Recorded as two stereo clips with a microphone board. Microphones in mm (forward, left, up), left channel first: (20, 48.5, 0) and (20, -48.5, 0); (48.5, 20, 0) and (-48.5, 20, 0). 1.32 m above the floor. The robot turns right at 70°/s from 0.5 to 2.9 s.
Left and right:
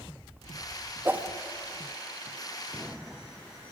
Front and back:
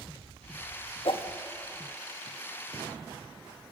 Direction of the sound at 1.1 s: 25° right.